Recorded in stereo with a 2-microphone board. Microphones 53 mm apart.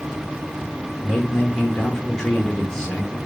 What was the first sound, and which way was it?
A man speaking, 10° left (ahead or behind).